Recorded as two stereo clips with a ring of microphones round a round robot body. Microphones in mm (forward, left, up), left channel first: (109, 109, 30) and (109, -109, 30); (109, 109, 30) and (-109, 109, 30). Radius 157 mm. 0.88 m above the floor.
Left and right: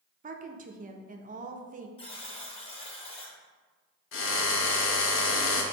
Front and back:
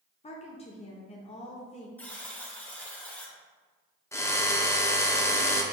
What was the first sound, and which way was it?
A woman speaking, 55° right.